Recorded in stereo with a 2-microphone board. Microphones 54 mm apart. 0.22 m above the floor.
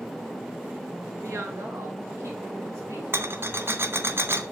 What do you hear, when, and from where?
1.2 s a woman speaking: 65° right (ahead or behind), 3 m
3.1 s a rattle: 50° right (ahead or behind), 0.7 m